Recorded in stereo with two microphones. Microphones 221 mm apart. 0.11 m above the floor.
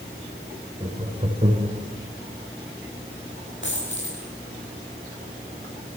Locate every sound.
0.8 s laughter: 30° right (ahead or behind), 6 m
3.6 s a dropped coin: 55° left (ahead or behind), 9 m